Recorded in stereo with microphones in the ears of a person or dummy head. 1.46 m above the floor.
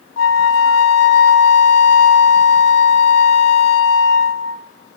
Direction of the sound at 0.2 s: 75° left (ahead or behind).